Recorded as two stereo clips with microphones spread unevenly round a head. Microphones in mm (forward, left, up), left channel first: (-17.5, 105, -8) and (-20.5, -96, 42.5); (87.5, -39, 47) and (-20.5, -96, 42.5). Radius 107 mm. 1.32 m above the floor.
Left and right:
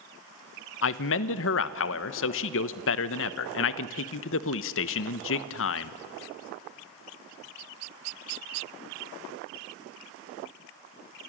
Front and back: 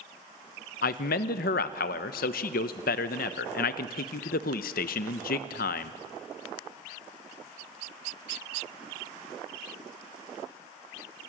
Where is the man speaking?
50° left, 0.8 m.